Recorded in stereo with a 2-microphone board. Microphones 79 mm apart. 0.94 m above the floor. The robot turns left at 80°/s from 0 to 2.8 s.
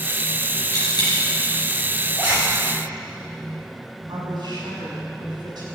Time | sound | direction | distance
0.7 | a dropped coin | 40° left (ahead or behind) | 4.5 m
2.2 | a zipper | 20° right (ahead or behind) | 6 m
4.1 | a woman speaking | 65° right (ahead or behind) | 6.5 m